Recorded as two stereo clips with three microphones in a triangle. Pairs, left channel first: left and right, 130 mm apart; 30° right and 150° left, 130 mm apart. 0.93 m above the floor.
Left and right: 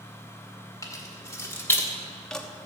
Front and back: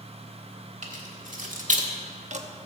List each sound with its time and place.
0.8 s keys jangling: 155° left, 1.9 m; by 2.5 s straight behind, 0.9 m